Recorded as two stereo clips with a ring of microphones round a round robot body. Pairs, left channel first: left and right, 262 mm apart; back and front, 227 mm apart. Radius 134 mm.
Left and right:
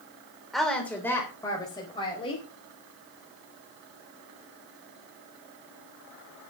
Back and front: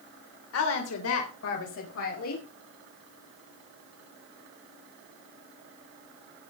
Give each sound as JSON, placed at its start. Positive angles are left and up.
{"t": 0.5, "sound": "a woman speaking", "azimuth_deg": 180, "distance_m": 3.0}